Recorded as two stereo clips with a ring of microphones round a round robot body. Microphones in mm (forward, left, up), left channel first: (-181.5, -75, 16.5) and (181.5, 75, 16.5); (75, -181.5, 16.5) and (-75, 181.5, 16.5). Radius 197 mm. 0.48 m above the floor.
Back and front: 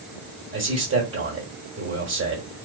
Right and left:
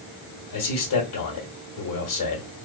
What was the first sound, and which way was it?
A man speaking, 35° right.